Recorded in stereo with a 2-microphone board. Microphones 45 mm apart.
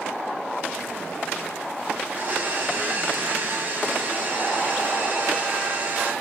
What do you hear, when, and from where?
2.0 s a blender: 40° right (ahead or behind), 0.9 m